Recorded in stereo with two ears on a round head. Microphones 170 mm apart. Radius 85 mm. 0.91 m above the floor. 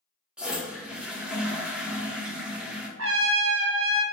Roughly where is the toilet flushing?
Centre.